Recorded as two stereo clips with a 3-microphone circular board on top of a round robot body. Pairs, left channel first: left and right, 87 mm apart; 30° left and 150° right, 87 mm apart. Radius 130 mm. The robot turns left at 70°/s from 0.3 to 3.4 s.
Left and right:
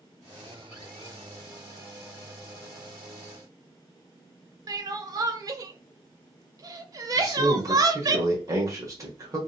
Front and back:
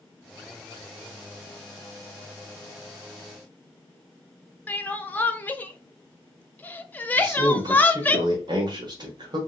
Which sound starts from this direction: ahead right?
Crying, at 4.7 s.